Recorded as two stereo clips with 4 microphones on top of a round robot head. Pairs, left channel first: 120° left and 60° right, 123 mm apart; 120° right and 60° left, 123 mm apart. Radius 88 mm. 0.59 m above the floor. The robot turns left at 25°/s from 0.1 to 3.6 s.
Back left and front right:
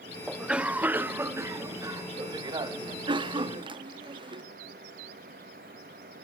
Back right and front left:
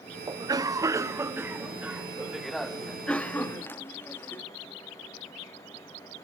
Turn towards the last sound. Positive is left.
turn(degrees=-60)